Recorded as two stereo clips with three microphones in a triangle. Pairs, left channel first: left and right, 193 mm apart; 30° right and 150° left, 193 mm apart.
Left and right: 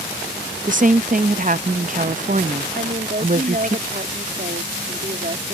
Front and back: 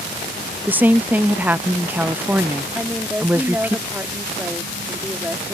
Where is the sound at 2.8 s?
130° right.